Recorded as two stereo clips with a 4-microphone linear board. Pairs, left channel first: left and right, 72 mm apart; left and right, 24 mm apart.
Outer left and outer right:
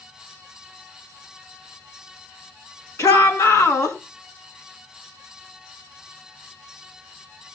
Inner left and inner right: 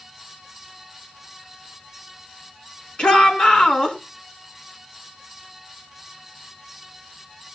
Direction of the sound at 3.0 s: 45° left (ahead or behind).